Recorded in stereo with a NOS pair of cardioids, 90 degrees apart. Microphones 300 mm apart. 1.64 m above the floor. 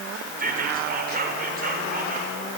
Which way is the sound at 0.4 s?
30° right.